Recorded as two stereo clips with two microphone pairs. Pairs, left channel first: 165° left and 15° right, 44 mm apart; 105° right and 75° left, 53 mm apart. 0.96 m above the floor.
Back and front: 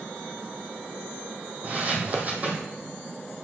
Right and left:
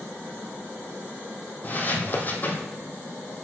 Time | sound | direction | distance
1.6 | footsteps | 60° right | 1.7 m